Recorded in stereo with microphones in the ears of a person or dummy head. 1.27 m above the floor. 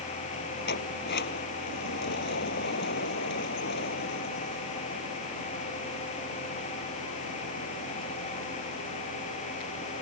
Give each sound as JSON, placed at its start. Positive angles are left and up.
{"t": 0.7, "sound": "a sliding door", "side_deg": 65}